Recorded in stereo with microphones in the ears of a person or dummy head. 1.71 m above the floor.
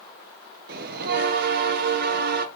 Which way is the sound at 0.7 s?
55° right (ahead or behind).